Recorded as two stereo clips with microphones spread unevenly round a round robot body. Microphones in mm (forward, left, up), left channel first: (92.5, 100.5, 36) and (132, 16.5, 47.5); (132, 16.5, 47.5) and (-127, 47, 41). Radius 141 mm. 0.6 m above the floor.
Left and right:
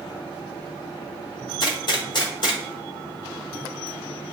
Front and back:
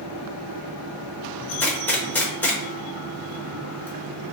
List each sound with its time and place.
1.6 s a gunshot: 80° left, 1.0 m